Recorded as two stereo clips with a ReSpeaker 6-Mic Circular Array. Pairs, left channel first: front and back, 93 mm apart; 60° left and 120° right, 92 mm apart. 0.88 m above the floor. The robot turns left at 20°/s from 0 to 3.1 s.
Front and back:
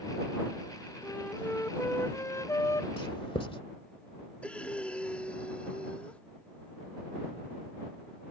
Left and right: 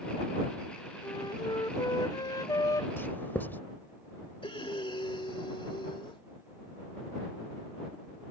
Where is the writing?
5° right; by 3.6 s 10° right.